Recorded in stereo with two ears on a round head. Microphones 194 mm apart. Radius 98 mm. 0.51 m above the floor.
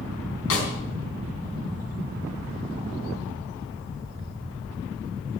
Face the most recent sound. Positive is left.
turn(degrees=65)  # may be behind; listen again after turning